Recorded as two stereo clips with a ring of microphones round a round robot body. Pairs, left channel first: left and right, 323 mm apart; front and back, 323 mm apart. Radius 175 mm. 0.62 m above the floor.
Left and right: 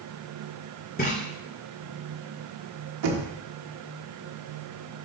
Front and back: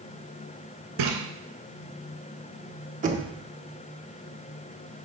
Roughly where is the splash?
Behind left.